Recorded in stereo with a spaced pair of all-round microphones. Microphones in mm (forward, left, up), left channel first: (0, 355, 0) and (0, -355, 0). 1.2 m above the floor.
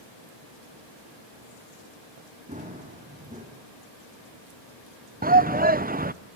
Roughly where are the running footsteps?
Centre.